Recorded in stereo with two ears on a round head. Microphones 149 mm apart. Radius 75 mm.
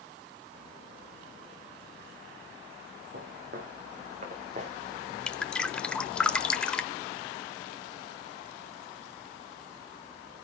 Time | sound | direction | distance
3.1 | footsteps | 60° right (ahead or behind) | 4 m
5.3 | dripping | 5° left (ahead or behind) | 0.8 m